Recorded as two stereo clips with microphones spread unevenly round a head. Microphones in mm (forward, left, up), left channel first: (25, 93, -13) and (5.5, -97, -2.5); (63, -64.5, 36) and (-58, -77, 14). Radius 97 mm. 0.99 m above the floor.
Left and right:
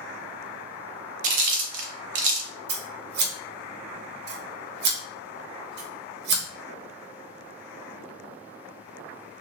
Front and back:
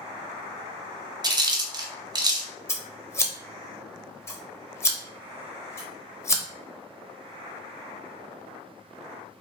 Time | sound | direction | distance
1.2 | chewing | 125° right | 0.7 m
2.7 | scissors | 65° right | 0.7 m